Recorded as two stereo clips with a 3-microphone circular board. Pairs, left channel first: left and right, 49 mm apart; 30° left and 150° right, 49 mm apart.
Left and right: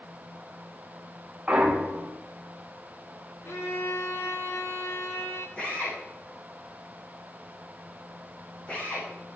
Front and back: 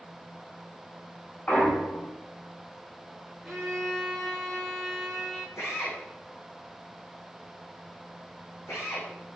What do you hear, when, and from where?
1.5 s a clunk: 25° right, 1.7 m
3.5 s a violin: 115° left, 2.5 m
5.6 s a drill: 20° left, 9.5 m